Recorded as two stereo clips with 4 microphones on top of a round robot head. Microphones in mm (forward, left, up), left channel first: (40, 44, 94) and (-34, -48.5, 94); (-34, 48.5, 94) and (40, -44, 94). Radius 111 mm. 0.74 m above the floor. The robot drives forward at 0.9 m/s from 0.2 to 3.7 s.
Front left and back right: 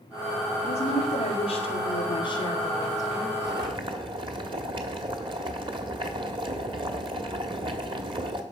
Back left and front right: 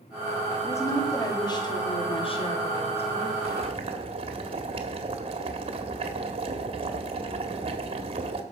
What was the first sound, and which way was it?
A woman speaking, 65° left.